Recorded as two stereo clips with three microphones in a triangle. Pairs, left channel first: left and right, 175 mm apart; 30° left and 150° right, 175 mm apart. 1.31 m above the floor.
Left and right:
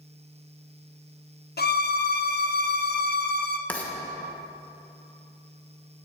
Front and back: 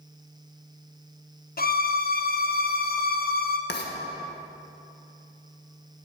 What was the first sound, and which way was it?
A violin, 60° left.